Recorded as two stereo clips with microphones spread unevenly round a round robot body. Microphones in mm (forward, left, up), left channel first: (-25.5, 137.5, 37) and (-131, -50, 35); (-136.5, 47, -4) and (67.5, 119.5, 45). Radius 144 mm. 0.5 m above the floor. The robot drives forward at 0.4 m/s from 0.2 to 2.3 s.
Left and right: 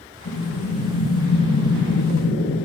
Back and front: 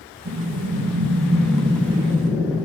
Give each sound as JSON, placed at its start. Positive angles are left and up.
{"t": 0.2, "sound": "breathing", "azimuth_deg": 40, "distance_m": 1.0}